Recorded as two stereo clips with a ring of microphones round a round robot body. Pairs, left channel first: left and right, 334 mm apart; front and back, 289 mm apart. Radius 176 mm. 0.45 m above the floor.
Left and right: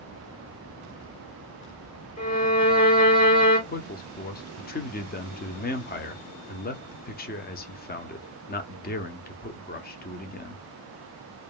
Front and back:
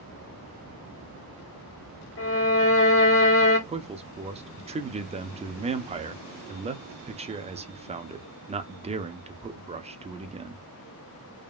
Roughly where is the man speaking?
Behind left.